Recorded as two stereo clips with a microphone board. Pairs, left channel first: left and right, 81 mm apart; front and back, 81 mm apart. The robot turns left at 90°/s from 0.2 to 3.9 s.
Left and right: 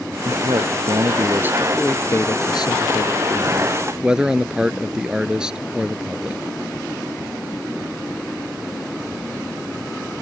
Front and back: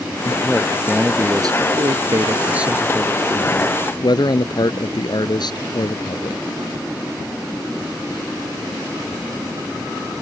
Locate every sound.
0.2 s a man speaking: 40° right; by 6.4 s 10° right